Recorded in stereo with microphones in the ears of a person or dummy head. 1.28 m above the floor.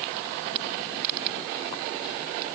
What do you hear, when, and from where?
Only background noise.